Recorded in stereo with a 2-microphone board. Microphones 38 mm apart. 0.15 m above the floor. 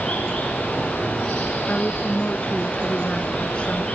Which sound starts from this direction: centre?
Running water, at 0.0 s.